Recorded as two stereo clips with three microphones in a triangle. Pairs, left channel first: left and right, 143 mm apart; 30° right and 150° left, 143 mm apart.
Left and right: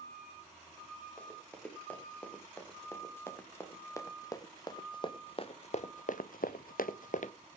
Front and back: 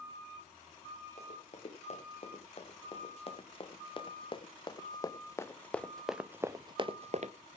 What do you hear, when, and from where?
1.2 s running footsteps: 10° left, 3.5 m; by 7.3 s 120° left, 0.9 m